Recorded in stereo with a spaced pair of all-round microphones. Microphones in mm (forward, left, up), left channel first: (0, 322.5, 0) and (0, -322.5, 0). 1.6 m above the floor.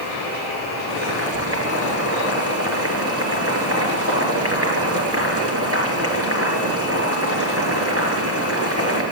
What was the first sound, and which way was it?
Boiling, 20° right (ahead or behind).